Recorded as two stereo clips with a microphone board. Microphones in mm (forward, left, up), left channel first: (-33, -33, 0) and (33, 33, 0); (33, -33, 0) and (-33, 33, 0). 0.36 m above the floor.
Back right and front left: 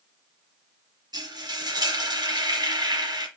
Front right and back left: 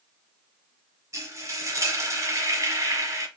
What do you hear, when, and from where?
1.1 s frying: 85° left, 1.4 m